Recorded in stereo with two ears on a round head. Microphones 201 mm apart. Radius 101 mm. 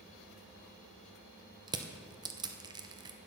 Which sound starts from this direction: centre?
Crushing, at 1.7 s.